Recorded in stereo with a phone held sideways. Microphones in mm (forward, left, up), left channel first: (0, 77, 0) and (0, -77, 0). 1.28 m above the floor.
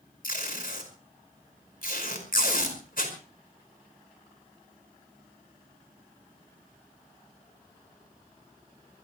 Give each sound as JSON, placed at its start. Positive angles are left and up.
{"t": 0.2, "sound": "tape being pulled", "side_deg": 70, "distance_m": 5.0}